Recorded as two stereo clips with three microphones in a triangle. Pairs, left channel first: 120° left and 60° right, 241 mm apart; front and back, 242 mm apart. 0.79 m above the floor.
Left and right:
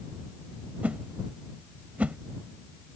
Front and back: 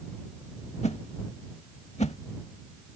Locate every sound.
0.8 s a whoosh: 20° left